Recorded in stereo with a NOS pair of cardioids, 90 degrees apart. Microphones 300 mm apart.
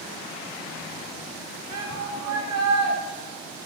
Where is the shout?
60° right, 9 m.